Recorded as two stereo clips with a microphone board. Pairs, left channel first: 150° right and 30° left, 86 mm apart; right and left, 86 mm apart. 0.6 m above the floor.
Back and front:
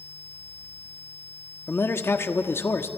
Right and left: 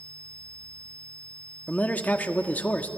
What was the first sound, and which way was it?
A man speaking, 140° right.